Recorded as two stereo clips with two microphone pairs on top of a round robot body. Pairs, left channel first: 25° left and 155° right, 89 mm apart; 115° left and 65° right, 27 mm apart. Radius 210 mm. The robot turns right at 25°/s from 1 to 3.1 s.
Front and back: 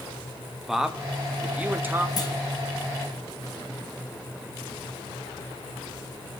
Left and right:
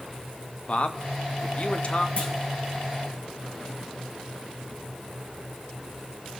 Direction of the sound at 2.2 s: 70° left.